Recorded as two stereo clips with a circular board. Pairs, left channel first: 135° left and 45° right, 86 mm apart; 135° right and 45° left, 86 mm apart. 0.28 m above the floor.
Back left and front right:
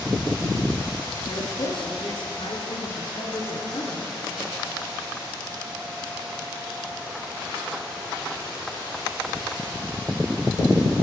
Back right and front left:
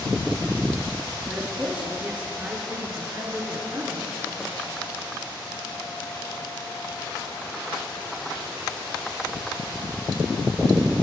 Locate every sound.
1.3 s a woman speaking: 125° left, 5 m; by 4.2 s 100° left, 5.5 m